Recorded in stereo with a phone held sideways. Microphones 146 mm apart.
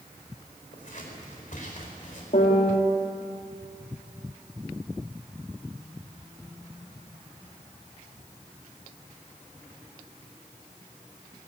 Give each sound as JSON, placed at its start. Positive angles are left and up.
{"t": 0.7, "sound": "scissors", "side_deg": 60, "distance_m": 5.0}
{"t": 2.3, "sound": "a piano", "side_deg": 70, "distance_m": 3.0}